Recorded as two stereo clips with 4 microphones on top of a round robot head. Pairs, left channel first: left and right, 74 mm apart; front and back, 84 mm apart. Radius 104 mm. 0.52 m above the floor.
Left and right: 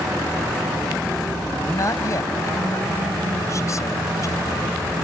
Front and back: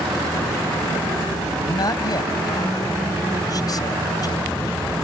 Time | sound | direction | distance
1.6 | a man speaking | 45° left | ?